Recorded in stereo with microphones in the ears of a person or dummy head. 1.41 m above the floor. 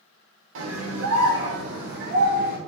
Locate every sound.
0.6 s a scream: 75° right (ahead or behind), 1.4 m; by 2.6 s 55° right (ahead or behind), 1.5 m